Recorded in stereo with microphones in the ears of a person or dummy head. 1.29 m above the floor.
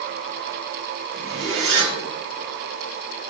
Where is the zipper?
55° right (ahead or behind), 1.4 m.